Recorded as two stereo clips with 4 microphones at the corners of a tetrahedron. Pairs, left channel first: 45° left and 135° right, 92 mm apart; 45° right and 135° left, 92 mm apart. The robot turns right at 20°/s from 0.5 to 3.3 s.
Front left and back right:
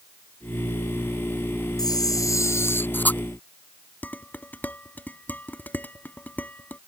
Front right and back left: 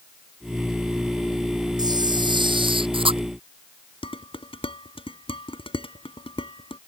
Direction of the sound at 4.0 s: 25° right.